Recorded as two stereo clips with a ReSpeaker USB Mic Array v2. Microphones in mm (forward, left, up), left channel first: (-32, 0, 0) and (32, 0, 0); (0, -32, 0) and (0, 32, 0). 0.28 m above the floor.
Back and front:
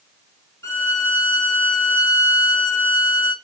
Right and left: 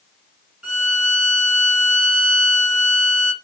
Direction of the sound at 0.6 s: 165° left.